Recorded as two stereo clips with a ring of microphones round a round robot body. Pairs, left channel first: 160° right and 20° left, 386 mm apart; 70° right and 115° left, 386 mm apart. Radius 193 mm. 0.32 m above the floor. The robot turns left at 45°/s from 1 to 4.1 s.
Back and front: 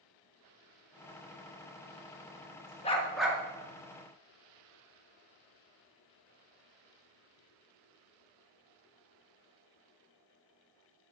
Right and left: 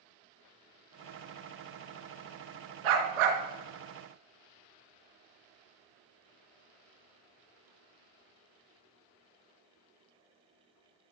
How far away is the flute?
No flute in this recording.